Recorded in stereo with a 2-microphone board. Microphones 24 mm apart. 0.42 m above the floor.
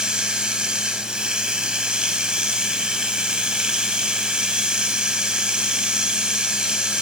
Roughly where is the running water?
Right.